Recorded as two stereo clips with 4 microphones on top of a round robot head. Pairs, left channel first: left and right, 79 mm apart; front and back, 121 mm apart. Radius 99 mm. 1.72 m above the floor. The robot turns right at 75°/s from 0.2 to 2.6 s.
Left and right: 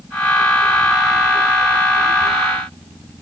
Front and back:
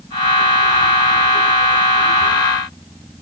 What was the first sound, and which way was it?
Only background noise.